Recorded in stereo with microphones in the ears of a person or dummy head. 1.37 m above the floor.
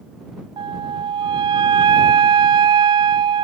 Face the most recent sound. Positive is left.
turn(degrees=-25)  # may be behind; listen again after turning